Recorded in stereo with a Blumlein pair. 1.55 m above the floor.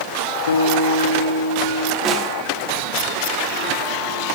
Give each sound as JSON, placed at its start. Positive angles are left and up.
{"t": 0.5, "sound": "a guitar", "azimuth_deg": 65, "distance_m": 1.5}
{"t": 2.0, "sound": "a snare drum", "azimuth_deg": -15, "distance_m": 3.0}